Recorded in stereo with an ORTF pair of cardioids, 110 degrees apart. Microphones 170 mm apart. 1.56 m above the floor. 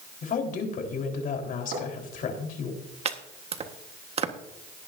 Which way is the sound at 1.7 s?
70° right.